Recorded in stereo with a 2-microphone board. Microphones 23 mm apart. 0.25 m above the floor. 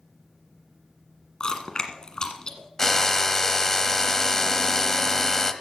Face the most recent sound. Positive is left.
turn(degrees=20)  # may be behind; listen again after turning